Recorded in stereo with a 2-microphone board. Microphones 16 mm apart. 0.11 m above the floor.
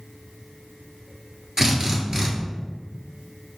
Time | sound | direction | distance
1.6 | a drill | 35° right (ahead or behind) | 1.0 m